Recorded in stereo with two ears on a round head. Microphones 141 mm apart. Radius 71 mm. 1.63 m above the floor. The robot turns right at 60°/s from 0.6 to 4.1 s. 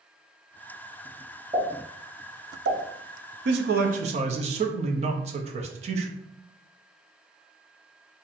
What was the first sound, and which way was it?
A pop, 20° right (ahead or behind).